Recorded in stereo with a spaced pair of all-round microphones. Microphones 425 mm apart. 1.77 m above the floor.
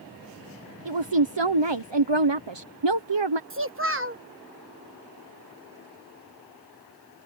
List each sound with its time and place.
0.8 s a woman speaking: 80° right
3.5 s a child speaking: 30° right (ahead or behind)